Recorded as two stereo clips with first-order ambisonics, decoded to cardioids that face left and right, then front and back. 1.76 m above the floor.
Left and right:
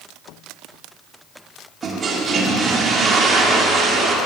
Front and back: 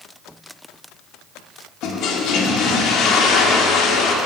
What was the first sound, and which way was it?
A toilet flushing, 30° right.